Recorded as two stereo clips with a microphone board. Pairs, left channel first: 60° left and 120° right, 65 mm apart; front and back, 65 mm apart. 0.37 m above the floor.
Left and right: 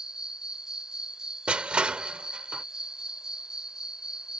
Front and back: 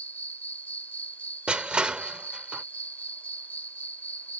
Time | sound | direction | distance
0.0 | an insect | 45° right | ?
1.5 | crushing | 145° right | ?